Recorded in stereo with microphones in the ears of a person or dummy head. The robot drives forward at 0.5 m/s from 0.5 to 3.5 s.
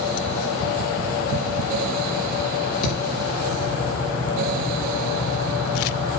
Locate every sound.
2.8 s a thud: 75° left (ahead or behind), 9 m